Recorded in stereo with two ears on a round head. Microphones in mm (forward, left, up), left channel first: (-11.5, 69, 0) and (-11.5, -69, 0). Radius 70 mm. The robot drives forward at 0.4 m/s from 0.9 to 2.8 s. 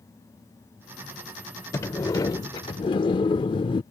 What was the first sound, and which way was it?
A sliding door, 20° left (ahead or behind).